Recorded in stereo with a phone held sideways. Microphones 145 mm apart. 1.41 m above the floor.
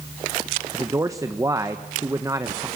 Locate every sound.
0.7 s a man speaking: 20° right (ahead or behind), 1.1 m